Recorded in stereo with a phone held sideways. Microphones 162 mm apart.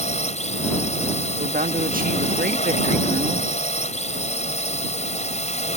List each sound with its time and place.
0.0 s a drone: 45° left (ahead or behind)
1.4 s a woman speaking: 60° right (ahead or behind)